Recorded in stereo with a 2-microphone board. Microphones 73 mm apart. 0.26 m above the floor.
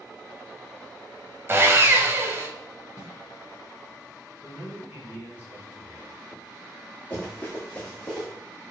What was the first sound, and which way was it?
Sawing, 35° right (ahead or behind).